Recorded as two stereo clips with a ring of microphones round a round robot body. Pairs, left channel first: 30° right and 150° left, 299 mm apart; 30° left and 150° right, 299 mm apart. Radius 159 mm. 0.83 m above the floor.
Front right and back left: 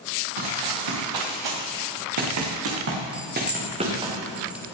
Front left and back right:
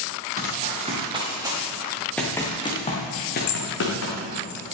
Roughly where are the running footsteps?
Behind left.